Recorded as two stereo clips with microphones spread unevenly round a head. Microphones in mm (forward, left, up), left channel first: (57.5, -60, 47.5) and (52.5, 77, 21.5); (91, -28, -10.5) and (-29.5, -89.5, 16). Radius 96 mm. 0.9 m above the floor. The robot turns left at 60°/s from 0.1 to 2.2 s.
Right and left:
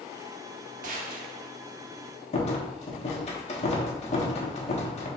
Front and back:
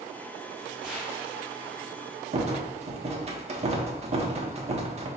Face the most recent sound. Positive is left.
turn(degrees=-120)